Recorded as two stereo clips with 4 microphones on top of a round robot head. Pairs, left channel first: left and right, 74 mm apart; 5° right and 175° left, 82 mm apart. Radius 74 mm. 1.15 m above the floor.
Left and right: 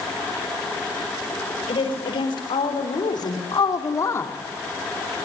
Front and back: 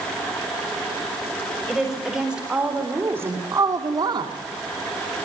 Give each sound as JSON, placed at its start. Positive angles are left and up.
{"t": 1.7, "sound": "a woman speaking", "azimuth_deg": 85, "distance_m": 4.5}